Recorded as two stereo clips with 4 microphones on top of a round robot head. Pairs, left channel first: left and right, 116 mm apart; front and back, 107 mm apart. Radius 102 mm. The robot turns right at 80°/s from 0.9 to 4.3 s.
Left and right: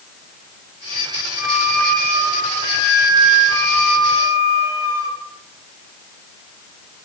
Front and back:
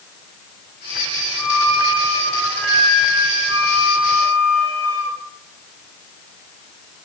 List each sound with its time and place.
1.4 s a flute: 15° right, 3 m; by 5.2 s 145° right, 3 m